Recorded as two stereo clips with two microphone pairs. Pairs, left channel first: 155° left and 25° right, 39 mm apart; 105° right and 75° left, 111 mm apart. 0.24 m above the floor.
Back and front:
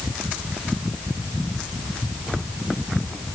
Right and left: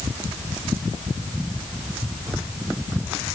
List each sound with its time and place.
Only background noise.